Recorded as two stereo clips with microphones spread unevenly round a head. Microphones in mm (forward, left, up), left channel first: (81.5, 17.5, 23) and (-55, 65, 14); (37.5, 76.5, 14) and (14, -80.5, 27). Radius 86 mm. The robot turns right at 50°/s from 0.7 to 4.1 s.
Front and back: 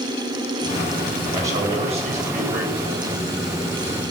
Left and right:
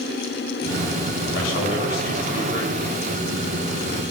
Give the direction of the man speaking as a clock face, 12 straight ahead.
9 o'clock.